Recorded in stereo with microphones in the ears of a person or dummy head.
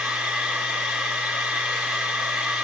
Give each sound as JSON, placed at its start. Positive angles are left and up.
{"t": 0.0, "sound": "a machine running", "side_deg": -5, "distance_m": 0.8}